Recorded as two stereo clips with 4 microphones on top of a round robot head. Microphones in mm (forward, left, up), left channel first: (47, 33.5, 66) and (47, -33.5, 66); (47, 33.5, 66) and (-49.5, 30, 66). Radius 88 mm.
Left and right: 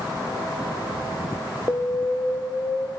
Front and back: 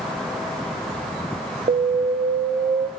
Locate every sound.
1.7 s an alarm: 155° left, 1.3 m